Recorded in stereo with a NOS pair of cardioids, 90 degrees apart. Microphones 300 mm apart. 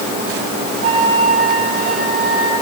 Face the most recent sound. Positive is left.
turn(degrees=-50)